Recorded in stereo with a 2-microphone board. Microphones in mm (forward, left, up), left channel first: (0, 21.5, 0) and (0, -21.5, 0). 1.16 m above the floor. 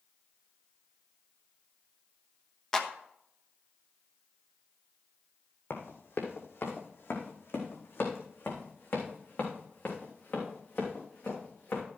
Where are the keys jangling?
I don't hear keys jangling.